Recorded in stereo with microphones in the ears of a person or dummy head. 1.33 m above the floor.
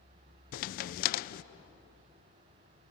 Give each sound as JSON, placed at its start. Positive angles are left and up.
{"t": 0.5, "sound": "a crack", "side_deg": 45, "distance_m": 0.5}